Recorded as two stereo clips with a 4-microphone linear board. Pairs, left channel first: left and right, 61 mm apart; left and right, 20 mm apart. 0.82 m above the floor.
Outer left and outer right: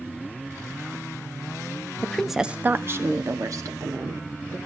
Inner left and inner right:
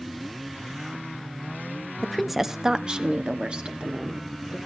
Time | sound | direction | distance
2.0 | a woman speaking | 20° left (ahead or behind) | 0.7 m